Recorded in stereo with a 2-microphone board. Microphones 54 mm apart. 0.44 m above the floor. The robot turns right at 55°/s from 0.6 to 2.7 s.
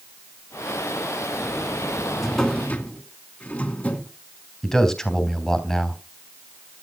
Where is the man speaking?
10° left (ahead or behind), 3.5 m.